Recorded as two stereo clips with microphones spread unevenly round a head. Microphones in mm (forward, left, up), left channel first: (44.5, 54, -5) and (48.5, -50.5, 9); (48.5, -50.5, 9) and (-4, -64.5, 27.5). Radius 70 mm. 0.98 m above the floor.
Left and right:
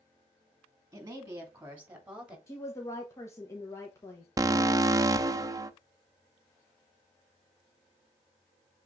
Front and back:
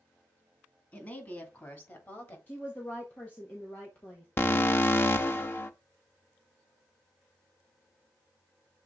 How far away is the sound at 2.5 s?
About 1.2 m.